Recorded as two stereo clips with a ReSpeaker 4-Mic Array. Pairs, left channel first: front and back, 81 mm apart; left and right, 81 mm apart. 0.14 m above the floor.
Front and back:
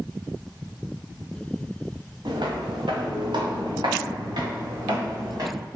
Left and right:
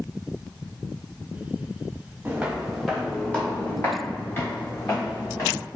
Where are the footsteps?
160° right, 1.0 m; by 5.6 s 145° left, 2 m.